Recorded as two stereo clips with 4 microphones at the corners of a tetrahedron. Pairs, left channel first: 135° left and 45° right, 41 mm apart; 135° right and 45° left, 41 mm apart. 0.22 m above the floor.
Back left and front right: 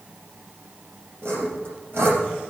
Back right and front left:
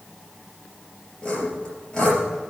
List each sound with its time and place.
1.2 s sawing: 60° right, 4 m